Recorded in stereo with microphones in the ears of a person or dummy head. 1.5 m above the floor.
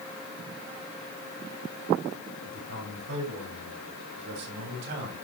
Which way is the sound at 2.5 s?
80° right.